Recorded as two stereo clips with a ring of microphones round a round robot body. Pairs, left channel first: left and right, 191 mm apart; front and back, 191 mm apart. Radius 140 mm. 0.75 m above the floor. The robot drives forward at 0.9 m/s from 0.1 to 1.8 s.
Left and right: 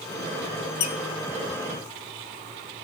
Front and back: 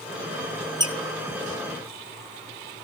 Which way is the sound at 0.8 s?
110° left.